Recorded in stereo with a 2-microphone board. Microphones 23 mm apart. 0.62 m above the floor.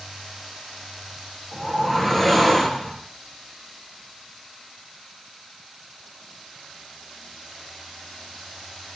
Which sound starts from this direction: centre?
A whoosh, at 1.5 s.